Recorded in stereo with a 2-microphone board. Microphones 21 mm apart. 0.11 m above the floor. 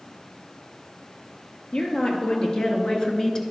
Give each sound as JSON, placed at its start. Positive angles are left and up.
{"t": 1.7, "sound": "a woman speaking", "side_deg": 55, "distance_m": 2.0}